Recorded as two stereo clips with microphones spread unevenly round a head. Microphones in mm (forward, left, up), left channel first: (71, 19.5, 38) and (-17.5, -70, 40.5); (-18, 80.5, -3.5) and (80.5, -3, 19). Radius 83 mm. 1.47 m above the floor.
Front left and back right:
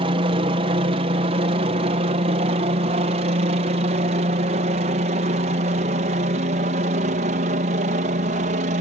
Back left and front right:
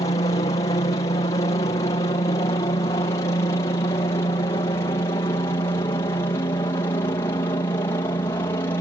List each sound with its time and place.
0.0 s a helicopter: 170° right; by 8.8 s 150° right